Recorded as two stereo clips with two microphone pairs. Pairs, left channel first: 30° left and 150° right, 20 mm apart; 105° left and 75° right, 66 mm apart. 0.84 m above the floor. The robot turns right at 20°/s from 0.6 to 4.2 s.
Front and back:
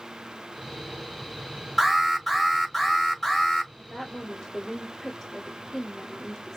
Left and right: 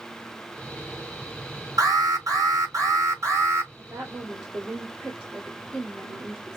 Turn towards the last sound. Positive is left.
turn(degrees=-5)